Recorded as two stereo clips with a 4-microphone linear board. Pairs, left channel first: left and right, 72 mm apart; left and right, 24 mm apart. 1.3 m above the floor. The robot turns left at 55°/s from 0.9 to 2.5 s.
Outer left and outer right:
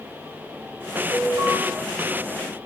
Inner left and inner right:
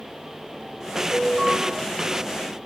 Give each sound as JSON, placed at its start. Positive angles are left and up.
{"t": 1.1, "sound": "an alarm", "side_deg": -80, "distance_m": 3.5}